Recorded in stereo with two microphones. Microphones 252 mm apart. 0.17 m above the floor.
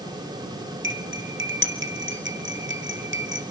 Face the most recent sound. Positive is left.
turn(degrees=-50)  # may be behind; listen again after turning